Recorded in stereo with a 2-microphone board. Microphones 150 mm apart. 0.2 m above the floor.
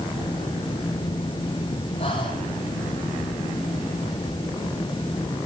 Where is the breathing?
40° left (ahead or behind), 5 m.